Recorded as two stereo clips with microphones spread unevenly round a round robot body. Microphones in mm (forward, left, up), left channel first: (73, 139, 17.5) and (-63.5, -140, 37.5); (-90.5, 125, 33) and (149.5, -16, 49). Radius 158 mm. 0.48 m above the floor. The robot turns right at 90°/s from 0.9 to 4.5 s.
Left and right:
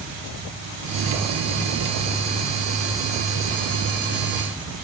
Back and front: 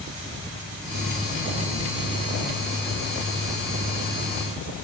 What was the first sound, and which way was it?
Only background noise.